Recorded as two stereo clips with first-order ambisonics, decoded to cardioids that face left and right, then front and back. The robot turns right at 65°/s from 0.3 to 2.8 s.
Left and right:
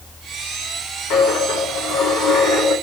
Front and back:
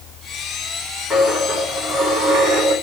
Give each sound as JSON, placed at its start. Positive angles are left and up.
{"t": 1.1, "sound": "a dropped coin", "azimuth_deg": 80, "distance_m": 3.5}